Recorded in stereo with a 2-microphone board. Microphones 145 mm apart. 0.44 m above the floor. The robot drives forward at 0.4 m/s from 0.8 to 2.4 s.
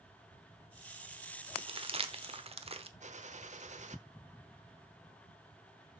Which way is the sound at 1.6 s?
40° right (ahead or behind).